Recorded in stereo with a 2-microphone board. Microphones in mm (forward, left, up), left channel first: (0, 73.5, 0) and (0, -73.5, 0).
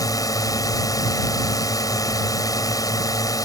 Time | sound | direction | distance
0.0 | a drone | 25° left (ahead or behind) | ?